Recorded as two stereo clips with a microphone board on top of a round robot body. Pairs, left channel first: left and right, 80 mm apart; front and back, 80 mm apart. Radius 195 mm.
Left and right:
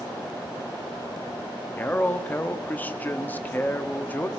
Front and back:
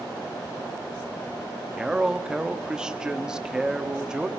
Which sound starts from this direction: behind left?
A man speaking, at 1.8 s.